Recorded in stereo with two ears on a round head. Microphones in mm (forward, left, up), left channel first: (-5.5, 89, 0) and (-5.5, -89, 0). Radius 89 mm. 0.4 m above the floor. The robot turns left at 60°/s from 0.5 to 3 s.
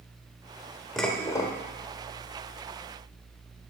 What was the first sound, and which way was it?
Dishes clattering, 175° left.